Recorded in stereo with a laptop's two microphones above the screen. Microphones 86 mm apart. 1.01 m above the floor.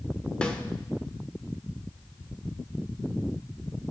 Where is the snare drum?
10° left (ahead or behind), 1.3 m.